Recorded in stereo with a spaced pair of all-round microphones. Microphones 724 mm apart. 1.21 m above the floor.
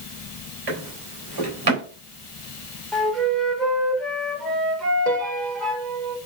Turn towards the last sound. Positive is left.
turn(degrees=-65)  # may be behind; listen again after turning